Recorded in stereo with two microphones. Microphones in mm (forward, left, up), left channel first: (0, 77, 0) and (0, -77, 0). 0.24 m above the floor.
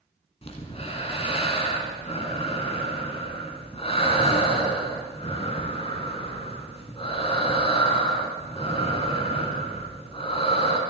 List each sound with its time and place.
0.4 s breathing: 40° left (ahead or behind), 1.7 m